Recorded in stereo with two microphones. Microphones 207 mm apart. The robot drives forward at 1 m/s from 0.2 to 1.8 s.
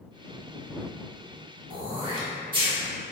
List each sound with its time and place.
1.7 s throat clearing: 25° right (ahead or behind), 1.0 m